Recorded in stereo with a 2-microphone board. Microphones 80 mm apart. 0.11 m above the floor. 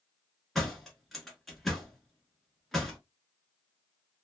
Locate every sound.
0.6 s a door slam: centre (ahead or behind), 1.1 m